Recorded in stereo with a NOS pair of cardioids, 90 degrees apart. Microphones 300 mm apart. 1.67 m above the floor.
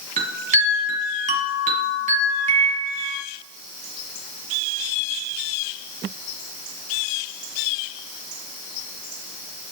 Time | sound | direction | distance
0.2 | a chime | 25° right | 2 m